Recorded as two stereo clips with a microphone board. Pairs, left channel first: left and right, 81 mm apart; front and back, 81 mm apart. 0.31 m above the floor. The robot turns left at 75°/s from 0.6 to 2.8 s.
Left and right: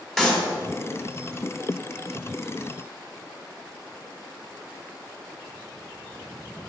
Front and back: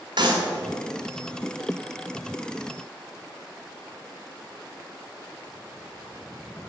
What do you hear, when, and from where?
0.2 s a clap: 175° left, 1.7 m